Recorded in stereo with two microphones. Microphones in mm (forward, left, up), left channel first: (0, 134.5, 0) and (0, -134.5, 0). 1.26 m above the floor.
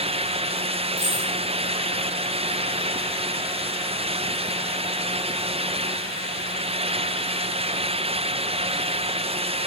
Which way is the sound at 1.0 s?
55° left (ahead or behind).